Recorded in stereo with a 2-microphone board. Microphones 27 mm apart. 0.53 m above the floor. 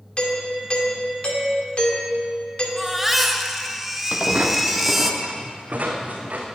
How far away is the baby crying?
About 1.1 m.